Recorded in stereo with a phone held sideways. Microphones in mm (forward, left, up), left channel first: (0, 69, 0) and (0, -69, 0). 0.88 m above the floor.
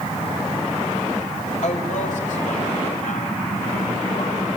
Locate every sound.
1.6 s a woman speaking: 70° left (ahead or behind), 5.5 m; by 4.4 s 85° left, 7.5 m